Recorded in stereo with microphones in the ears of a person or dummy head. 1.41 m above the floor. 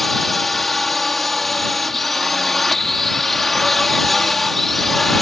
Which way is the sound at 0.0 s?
Centre (ahead or behind).